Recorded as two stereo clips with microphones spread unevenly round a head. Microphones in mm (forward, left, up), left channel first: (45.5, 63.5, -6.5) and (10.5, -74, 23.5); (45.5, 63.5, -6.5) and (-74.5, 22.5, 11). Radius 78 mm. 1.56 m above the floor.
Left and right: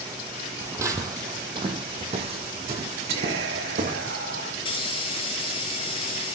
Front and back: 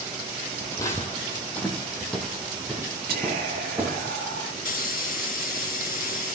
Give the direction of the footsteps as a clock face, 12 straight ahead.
2 o'clock.